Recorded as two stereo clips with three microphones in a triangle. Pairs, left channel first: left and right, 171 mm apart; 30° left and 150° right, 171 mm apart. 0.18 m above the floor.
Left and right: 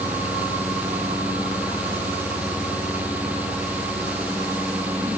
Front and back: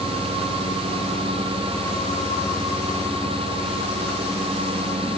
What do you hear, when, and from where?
Only background noise.